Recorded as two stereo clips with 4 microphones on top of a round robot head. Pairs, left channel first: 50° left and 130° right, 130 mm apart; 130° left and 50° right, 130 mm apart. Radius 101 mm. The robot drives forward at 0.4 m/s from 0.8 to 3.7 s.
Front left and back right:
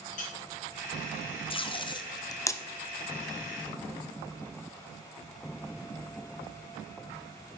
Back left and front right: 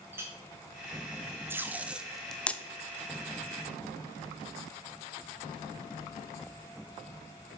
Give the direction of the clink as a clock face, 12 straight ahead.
11 o'clock.